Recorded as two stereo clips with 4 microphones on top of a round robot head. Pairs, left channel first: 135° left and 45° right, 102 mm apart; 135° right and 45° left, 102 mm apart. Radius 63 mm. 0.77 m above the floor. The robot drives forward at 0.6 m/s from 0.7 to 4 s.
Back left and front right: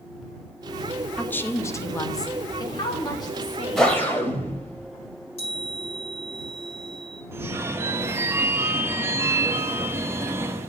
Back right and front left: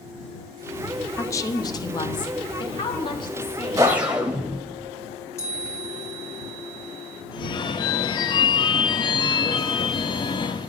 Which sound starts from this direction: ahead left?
A whoosh, at 3.8 s.